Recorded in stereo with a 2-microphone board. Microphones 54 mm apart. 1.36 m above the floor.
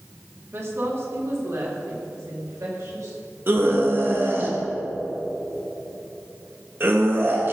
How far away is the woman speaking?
About 2.5 m.